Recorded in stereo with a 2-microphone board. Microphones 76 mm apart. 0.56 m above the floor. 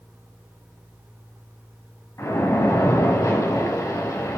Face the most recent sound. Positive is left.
turn(degrees=40)  # may be behind; listen again after turning